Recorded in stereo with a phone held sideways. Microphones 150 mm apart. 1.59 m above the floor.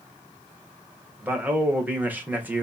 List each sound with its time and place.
1.2 s a man speaking: 10° right (ahead or behind), 1.3 m